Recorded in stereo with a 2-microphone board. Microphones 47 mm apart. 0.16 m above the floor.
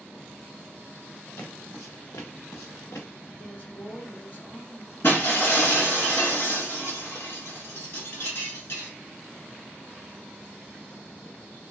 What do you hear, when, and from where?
1.4 s footsteps: 50° left (ahead or behind), 1.1 m; by 3.1 s 70° left (ahead or behind), 1.3 m
3.4 s a woman speaking: 45° left (ahead or behind), 1.9 m
5.0 s breaking glass: 55° left (ahead or behind), 1.3 m